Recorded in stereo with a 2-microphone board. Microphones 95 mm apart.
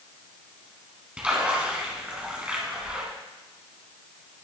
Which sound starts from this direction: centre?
A splash, at 1.2 s.